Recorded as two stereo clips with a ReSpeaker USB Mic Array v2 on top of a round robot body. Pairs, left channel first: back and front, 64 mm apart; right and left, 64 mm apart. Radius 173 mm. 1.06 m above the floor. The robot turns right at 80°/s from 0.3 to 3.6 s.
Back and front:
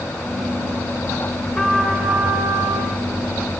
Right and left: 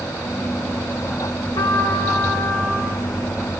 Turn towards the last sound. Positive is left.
turn(degrees=60)